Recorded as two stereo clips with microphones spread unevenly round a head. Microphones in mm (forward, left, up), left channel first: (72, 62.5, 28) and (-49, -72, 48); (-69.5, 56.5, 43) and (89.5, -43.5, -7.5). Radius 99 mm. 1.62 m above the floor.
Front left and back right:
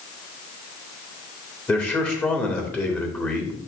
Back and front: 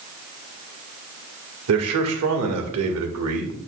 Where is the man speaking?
35° right, 1.7 m.